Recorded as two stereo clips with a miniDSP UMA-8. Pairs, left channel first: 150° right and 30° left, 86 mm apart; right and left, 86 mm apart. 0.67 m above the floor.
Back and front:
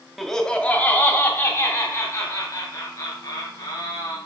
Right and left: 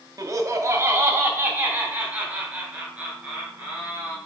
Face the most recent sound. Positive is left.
turn(degrees=170)